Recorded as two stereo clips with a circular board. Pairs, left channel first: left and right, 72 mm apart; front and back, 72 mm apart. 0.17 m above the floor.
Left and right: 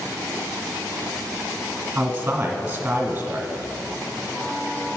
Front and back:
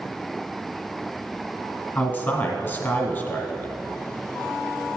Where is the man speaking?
40° right, 1.4 m.